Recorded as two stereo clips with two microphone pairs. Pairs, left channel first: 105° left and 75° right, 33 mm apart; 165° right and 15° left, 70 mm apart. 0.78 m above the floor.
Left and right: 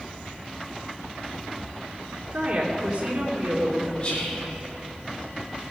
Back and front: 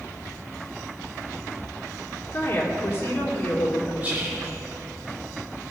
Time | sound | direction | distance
2.3 | a woman speaking | 120° right | 2.5 m
4.0 | whispering | 75° left | 1.5 m